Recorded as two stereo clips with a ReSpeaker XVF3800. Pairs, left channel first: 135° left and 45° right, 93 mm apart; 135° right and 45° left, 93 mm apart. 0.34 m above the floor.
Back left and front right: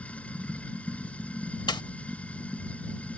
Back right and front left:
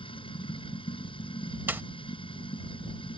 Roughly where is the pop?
Left.